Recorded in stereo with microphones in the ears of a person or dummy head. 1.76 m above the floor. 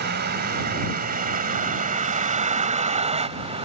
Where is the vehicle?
60° right (ahead or behind); by 3.6 s 35° right (ahead or behind).